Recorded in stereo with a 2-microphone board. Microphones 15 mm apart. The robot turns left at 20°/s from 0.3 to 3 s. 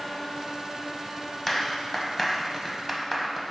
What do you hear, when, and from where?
1.5 s a clap: 20° left (ahead or behind), 1.0 m; by 3.5 s centre (ahead or behind), 1.0 m